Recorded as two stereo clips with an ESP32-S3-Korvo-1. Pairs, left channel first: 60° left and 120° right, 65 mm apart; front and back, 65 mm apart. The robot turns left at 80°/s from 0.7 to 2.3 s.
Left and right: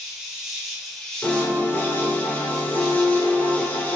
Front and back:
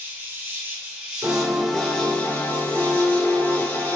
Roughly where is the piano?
Behind left.